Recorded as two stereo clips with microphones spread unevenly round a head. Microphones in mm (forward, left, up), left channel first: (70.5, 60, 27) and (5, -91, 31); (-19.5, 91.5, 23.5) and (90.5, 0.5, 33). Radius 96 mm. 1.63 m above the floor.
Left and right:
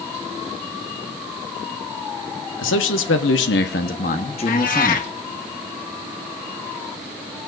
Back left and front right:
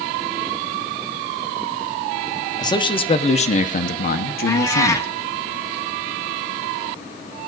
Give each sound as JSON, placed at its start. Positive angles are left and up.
{"t": 2.6, "sound": "a man speaking", "azimuth_deg": 75, "distance_m": 1.3}
{"t": 4.5, "sound": "a cat meowing", "azimuth_deg": 75, "distance_m": 1.1}